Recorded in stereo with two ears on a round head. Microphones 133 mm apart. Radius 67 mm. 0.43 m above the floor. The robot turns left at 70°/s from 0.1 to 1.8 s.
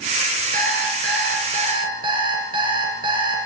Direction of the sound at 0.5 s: 60° right.